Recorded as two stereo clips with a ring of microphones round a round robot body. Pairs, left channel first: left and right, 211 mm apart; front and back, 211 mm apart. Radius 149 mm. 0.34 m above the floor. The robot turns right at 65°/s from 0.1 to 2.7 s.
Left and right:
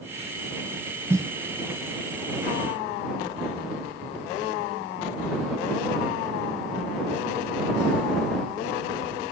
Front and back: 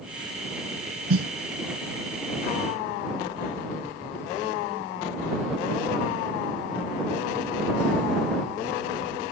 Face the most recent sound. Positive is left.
turn(degrees=-70)